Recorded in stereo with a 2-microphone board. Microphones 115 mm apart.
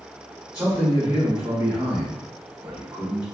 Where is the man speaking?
15° right (ahead or behind), 1.6 m.